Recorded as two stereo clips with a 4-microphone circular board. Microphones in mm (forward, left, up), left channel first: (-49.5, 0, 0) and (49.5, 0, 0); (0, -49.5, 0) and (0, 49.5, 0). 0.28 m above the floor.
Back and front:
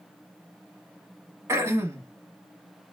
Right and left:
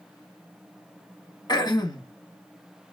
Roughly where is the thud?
No thud in this recording.